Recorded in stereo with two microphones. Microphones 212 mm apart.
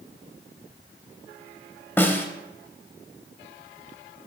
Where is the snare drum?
10° left (ahead or behind), 0.6 m.